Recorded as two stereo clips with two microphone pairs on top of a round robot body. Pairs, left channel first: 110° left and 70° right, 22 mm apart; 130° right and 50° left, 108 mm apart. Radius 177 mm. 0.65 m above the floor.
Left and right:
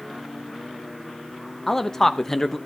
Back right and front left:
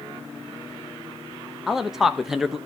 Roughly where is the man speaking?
Behind left.